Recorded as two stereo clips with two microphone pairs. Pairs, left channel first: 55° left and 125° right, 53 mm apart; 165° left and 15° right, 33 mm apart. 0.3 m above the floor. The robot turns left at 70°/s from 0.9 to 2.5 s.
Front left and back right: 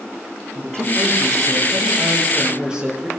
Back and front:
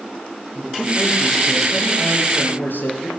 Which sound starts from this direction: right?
A man speaking, at 0.6 s.